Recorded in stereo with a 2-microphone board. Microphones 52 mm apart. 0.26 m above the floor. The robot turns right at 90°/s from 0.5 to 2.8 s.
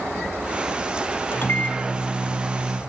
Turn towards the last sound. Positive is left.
turn(degrees=-110)